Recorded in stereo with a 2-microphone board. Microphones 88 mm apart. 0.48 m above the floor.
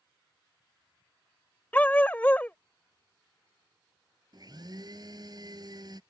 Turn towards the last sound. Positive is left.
turn(degrees=-50)  # may be behind; listen again after turning